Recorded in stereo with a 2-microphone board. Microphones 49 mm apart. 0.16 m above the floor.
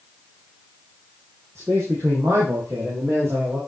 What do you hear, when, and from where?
1.6 s a man speaking: 85° right, 8 m; by 3.6 s 70° right (ahead or behind), 8 m